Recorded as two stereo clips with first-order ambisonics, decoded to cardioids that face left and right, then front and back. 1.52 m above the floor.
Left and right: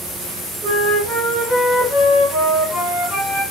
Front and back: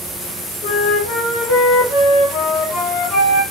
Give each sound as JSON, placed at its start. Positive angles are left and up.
{"t": 0.6, "sound": "a flute", "azimuth_deg": -15, "distance_m": 1.1}